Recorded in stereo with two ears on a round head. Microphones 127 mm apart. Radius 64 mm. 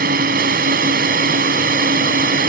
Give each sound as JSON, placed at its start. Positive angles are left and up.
{"t": 0.0, "sound": "a drone", "side_deg": -70}